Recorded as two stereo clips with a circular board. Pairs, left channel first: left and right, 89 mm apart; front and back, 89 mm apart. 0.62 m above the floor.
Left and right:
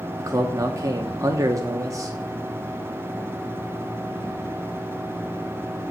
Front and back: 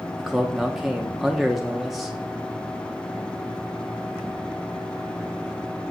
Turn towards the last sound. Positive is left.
turn(degrees=-95)